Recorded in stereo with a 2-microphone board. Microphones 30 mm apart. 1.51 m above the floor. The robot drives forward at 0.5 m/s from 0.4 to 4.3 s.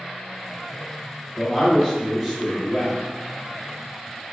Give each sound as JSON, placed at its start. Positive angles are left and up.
{"t": 1.4, "sound": "a man speaking", "side_deg": 5, "distance_m": 1.0}